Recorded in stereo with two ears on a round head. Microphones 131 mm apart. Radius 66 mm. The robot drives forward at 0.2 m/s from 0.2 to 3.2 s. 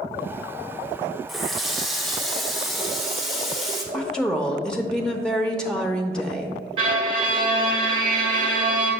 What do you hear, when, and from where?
1.3 s a running tap: centre (ahead or behind), 0.7 m
3.9 s a woman speaking: 5° left (ahead or behind), 0.7 m
6.8 s a violin: 40° right (ahead or behind), 1.7 m